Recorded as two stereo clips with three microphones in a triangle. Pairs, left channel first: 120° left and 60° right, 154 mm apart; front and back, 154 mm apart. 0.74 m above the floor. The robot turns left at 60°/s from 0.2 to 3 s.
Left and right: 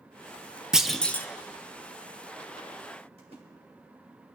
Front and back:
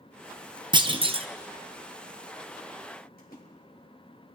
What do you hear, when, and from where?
0.7 s a clunk: 145° right, 0.6 m; by 1.3 s 175° right, 0.6 m
3.2 s a splash: 10° right, 2.5 m